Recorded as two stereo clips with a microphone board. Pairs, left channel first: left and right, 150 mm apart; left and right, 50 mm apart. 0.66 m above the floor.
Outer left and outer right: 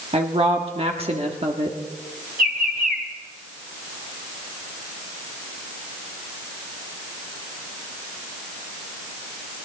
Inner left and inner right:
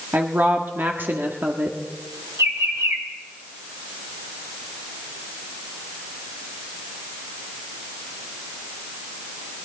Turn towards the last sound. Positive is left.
turn(degrees=-70)  # may be behind; listen again after turning